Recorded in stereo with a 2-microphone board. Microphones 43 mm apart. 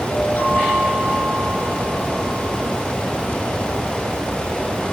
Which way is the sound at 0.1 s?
45° left (ahead or behind).